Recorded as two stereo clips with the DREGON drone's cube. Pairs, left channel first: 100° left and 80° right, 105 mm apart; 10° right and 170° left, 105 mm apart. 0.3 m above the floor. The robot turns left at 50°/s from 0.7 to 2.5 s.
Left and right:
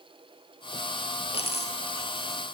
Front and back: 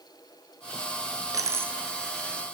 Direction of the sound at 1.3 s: 115° left.